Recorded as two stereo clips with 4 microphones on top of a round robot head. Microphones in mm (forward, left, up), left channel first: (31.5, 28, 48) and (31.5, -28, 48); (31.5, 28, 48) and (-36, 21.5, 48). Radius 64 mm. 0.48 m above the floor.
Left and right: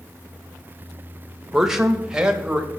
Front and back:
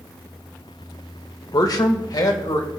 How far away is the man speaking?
About 1.6 m.